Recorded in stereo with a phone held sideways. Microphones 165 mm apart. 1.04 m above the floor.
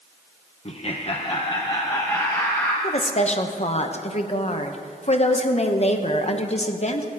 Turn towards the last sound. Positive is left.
turn(degrees=40)  # may be behind; listen again after turning